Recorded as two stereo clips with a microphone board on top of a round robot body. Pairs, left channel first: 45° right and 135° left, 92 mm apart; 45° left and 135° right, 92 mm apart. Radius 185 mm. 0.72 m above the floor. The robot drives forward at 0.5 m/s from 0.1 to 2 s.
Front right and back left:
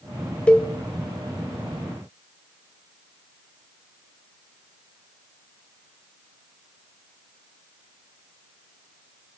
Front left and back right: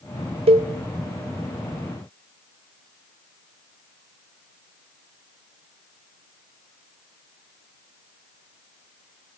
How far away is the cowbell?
About 0.9 m.